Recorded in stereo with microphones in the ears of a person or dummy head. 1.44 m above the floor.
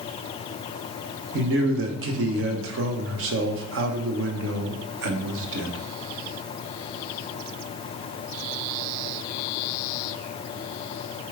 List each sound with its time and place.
1.3 s a man speaking: 75° right (ahead or behind), 1.0 m